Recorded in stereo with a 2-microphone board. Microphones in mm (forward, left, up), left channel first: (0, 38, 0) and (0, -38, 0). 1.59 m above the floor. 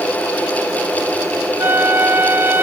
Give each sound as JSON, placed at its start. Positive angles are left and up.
{"t": 1.6, "sound": "a flute", "side_deg": -30}